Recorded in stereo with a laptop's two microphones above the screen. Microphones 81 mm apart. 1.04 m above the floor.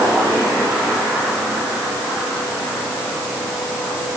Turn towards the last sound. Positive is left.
No sound to turn to.